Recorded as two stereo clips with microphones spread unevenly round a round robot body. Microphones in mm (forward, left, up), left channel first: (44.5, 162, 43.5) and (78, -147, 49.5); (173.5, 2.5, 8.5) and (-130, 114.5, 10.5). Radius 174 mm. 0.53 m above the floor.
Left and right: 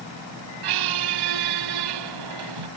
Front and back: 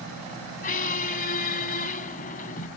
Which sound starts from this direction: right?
A squeak, at 0.6 s.